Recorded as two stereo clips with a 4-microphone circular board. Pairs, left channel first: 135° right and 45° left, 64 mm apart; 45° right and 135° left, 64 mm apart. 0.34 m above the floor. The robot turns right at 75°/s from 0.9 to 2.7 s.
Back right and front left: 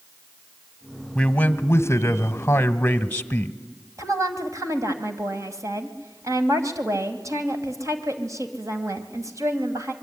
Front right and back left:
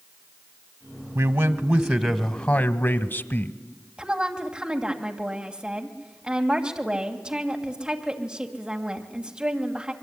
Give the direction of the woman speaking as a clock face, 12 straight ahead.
10 o'clock.